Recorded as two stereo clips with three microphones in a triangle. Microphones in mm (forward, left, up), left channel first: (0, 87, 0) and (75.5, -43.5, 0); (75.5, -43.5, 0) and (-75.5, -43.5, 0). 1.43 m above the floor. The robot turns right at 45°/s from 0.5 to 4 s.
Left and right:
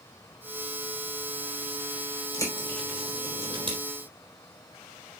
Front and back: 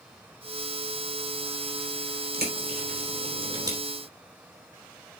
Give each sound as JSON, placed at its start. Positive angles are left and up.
{"t": 2.3, "sound": "a bird", "azimuth_deg": -175, "distance_m": 3.5}